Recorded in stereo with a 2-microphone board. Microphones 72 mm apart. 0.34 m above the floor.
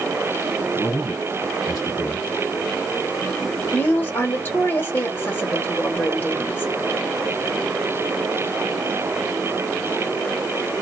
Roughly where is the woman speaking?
Left.